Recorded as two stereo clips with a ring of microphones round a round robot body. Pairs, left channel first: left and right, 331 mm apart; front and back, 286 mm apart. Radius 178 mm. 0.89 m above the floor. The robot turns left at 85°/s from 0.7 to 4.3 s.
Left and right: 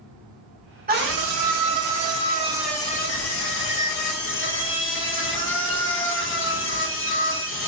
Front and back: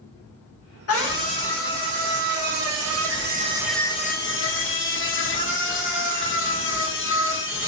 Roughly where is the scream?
Ahead right.